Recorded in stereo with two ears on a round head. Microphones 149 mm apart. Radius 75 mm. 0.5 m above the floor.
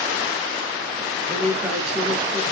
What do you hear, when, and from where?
1.3 s a woman speaking: 5° left (ahead or behind), 1.0 m